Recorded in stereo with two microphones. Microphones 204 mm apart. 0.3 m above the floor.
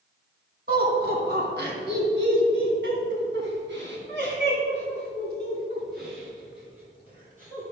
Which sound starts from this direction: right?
Laughter, at 0.7 s.